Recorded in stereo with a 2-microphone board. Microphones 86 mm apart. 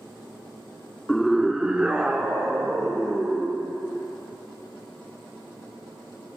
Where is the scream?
5° left (ahead or behind), 0.7 m; by 3.6 s 20° right (ahead or behind), 2.5 m.